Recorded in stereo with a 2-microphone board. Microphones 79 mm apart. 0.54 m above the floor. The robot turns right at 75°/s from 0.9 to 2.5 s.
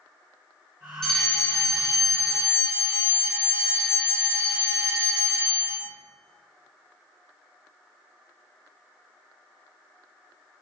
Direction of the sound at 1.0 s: 10° left.